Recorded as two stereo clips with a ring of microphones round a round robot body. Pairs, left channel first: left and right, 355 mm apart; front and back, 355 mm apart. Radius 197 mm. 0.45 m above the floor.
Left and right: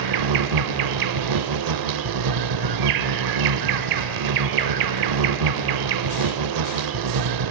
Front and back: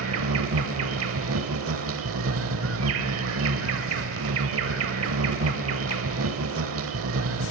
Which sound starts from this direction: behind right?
An insect, at 0.0 s.